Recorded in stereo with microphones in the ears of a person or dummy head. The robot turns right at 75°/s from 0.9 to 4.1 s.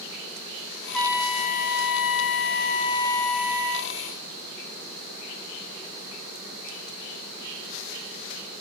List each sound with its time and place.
0.9 s a trumpet: 5° left, 0.6 m; by 3.9 s 130° right, 0.6 m